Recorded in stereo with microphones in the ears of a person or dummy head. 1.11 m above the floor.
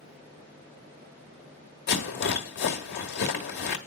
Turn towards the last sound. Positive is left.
turn(degrees=45)  # may be behind; listen again after turning